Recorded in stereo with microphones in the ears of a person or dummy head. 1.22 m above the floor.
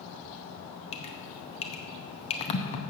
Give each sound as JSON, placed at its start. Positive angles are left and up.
{"t": 0.9, "sound": "dripping", "side_deg": 35, "distance_m": 0.7}